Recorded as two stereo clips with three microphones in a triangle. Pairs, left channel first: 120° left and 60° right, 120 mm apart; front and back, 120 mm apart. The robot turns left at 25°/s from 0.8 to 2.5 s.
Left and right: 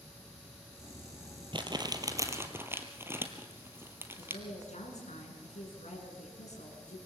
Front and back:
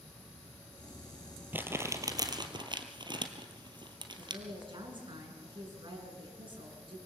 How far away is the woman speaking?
About 6.5 m.